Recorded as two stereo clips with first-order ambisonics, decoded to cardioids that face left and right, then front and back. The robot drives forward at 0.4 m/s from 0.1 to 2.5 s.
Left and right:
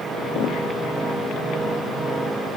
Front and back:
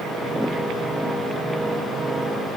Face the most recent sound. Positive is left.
No sound to turn to.